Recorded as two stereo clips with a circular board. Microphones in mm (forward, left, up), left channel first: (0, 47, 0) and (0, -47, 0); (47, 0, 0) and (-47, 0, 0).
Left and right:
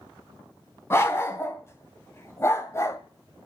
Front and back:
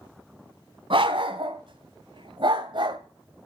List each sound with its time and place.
0.9 s a dog barking: 155° left, 3 m; by 3.0 s 150° left, 1.8 m